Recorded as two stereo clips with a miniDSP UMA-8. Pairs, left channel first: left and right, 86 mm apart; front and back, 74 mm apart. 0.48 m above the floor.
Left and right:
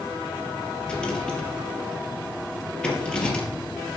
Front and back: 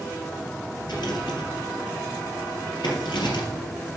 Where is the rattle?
10° left, 3 m.